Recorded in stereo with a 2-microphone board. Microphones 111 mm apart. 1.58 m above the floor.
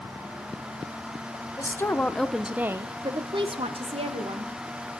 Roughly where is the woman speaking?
Left.